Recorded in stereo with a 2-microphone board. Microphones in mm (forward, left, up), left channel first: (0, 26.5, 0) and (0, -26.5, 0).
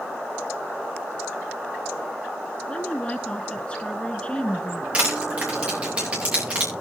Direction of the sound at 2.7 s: 20° left (ahead or behind).